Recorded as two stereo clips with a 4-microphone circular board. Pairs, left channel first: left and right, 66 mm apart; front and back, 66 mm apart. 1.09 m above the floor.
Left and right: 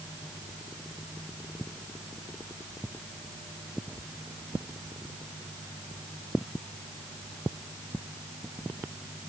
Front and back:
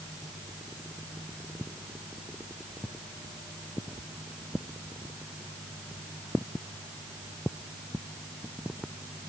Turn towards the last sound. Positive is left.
No sound to turn to.